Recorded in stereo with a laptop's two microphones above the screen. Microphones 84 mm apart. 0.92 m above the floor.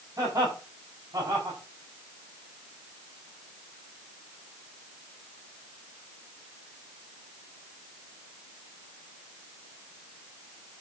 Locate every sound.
0.2 s laughter: 50° right (ahead or behind), 7.5 m